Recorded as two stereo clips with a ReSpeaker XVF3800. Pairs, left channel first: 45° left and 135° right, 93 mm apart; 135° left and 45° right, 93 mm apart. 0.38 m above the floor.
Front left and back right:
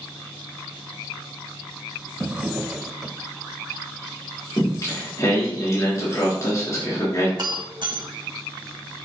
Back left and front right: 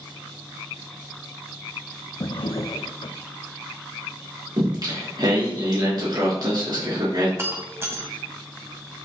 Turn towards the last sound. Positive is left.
turn(degrees=-105)